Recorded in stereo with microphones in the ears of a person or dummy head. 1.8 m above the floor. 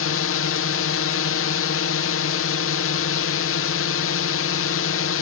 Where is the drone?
65° left (ahead or behind).